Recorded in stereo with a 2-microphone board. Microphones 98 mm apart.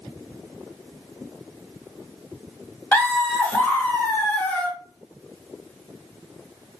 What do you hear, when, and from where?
2.9 s laughter: 15° left (ahead or behind), 0.9 m